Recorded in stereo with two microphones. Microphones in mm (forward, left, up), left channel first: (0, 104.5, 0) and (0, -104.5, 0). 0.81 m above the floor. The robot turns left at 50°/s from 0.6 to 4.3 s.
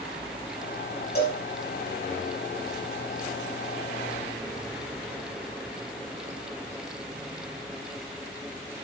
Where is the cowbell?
50° left (ahead or behind), 5 m; by 1.4 s 40° left (ahead or behind), 5 m.